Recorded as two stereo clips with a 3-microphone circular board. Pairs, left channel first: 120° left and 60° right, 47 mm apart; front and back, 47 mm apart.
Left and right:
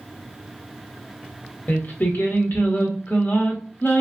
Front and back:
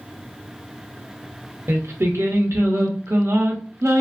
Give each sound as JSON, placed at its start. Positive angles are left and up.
{"t": 1.7, "sound": "singing", "azimuth_deg": 165, "distance_m": 0.6}